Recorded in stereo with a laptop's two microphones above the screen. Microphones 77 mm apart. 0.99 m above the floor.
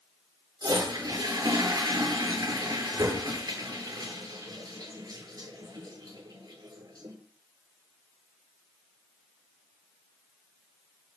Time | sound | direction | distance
0.6 | a toilet flushing | 60° right (ahead or behind) | 9.5 m